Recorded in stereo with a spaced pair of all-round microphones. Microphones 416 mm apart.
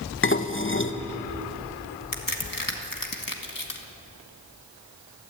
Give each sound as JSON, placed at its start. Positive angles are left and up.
{"t": 0.2, "sound": "dishes clattering", "side_deg": 30, "distance_m": 0.9}
{"t": 2.1, "sound": "a crack", "side_deg": 50, "distance_m": 1.8}